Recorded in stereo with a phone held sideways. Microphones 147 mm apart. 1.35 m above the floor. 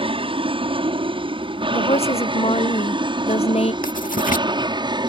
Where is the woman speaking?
45° left (ahead or behind).